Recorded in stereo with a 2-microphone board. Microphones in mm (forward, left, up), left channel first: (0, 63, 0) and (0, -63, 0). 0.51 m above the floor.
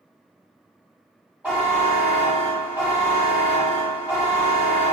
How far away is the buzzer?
About 1.9 m.